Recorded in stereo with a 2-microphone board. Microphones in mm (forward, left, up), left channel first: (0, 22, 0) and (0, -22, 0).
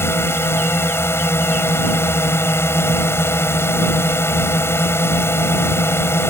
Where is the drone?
70° left (ahead or behind).